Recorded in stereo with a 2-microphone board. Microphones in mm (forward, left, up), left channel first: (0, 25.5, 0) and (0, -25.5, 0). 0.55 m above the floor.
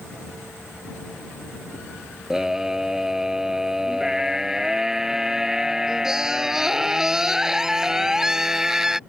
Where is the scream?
10° right (ahead or behind).